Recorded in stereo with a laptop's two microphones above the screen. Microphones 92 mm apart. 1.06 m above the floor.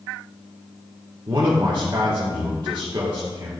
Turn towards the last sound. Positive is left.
turn(degrees=-55)  # may be behind; listen again after turning